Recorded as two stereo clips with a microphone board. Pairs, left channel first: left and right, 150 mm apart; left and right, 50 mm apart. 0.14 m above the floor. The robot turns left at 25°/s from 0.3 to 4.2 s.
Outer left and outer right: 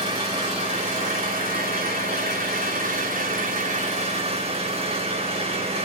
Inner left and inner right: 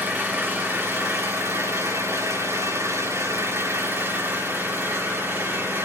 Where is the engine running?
45° right, 5.5 m; by 5.8 s 140° right, 5.5 m.